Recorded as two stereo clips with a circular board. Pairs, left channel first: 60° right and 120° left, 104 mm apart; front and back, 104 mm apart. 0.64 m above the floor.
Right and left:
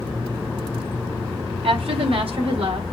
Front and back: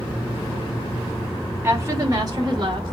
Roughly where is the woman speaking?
Behind left.